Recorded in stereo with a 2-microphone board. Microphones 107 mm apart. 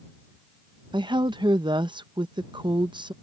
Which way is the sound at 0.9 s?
45° right (ahead or behind).